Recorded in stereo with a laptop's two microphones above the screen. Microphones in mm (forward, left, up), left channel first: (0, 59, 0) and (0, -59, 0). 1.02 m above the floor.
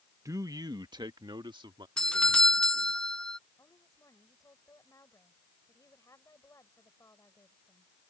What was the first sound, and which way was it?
A man speaking, 25° right (ahead or behind).